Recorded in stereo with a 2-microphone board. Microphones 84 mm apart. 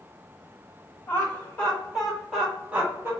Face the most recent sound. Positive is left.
turn(degrees=-25)  # may be behind; listen again after turning